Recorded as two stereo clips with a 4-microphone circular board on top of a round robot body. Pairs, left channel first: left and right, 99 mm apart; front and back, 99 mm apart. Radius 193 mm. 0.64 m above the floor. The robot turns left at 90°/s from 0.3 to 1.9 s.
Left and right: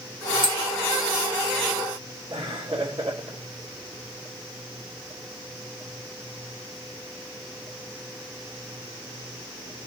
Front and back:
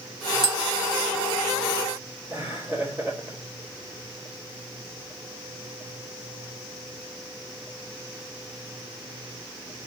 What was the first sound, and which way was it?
Tapping, 85° right.